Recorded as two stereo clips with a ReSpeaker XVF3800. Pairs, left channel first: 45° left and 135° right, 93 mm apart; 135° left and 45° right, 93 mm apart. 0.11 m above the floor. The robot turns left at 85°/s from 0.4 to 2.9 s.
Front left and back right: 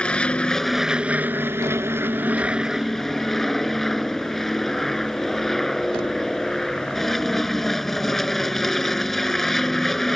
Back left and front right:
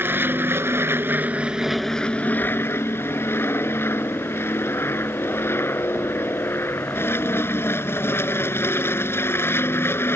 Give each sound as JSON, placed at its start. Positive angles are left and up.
{"t": 0.0, "sound": "an aircraft", "azimuth_deg": -20}